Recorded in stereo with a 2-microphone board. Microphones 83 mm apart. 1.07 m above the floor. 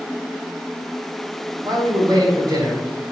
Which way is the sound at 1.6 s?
55° right (ahead or behind).